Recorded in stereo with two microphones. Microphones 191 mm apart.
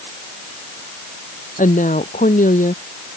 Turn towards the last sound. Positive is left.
turn(degrees=45)  # may be behind; listen again after turning